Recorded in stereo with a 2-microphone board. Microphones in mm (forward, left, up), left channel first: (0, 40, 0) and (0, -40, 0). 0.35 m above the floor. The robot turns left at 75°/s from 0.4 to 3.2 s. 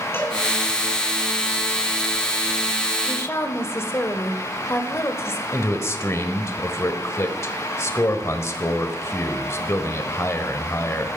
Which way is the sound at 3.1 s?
30° left (ahead or behind).